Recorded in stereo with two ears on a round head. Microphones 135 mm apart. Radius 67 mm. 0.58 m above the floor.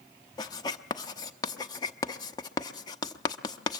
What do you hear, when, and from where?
0.4 s writing: 25° left (ahead or behind), 0.8 m